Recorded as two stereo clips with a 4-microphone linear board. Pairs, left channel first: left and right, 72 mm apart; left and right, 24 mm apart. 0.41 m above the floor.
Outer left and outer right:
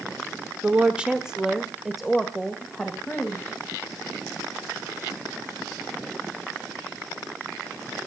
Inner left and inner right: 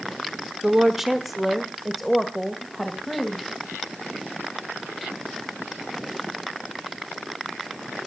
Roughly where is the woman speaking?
Centre.